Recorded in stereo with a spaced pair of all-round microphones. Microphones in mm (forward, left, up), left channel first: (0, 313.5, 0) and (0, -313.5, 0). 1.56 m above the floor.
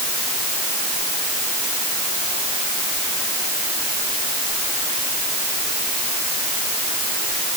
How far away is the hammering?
No hammering in this recording.